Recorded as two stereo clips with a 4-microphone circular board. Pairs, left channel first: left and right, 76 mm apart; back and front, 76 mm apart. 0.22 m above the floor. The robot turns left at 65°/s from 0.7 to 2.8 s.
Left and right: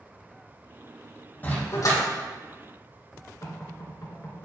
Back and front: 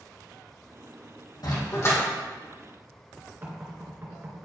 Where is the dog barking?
155° left, 3.5 m; by 2.0 s 120° left, 3.5 m.